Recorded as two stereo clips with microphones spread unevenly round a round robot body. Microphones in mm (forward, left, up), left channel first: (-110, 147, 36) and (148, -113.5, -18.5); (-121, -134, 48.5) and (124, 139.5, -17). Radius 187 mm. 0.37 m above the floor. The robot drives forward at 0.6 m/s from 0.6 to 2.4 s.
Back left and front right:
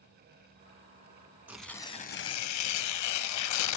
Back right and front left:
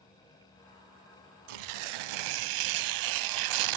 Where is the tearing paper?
40° left, 0.8 m; by 3.8 s 85° left, 0.5 m.